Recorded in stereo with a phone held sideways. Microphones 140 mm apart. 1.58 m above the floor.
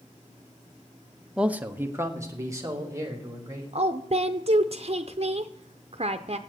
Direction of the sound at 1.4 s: 5° right (ahead or behind).